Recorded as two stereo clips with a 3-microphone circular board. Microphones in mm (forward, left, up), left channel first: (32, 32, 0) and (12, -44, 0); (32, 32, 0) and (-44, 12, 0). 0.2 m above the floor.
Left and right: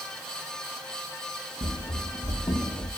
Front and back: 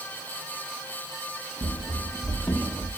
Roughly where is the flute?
No flute in this recording.